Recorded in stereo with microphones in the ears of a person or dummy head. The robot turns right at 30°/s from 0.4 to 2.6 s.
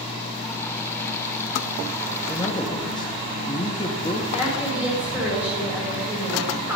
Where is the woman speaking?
10° right (ahead or behind), 4.5 m.